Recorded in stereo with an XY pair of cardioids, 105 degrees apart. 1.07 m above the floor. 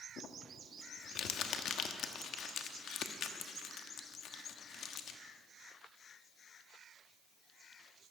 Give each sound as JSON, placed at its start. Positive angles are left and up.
{"t": 0.2, "sound": "crumpling", "azimuth_deg": 70, "distance_m": 1.1}